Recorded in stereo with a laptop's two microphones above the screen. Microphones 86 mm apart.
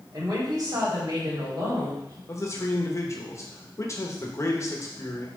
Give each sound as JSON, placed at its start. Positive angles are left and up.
{"t": 0.1, "sound": "a woman speaking", "side_deg": -45, "distance_m": 3.5}
{"t": 2.3, "sound": "a man speaking", "side_deg": 35, "distance_m": 1.1}